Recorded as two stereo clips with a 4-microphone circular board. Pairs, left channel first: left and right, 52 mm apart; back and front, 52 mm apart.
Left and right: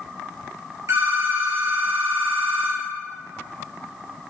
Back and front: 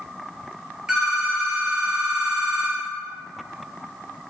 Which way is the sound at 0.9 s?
75° right.